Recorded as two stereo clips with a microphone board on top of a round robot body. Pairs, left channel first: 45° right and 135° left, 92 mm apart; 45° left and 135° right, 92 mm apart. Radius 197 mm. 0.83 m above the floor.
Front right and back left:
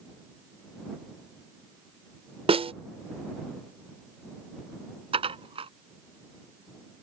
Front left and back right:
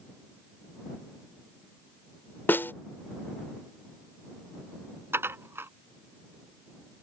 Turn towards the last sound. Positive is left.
turn(degrees=160)